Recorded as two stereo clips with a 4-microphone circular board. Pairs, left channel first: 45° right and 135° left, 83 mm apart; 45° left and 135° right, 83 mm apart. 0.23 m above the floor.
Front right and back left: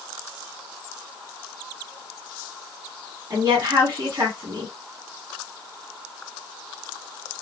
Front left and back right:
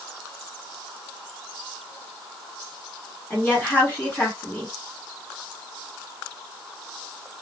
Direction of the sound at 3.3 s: 100° left.